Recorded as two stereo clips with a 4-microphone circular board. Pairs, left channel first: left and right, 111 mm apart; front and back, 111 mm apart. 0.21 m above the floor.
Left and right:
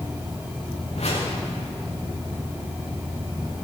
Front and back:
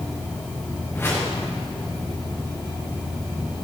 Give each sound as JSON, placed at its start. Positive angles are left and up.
{"t": 0.9, "sound": "a whoosh", "azimuth_deg": 70, "distance_m": 4.0}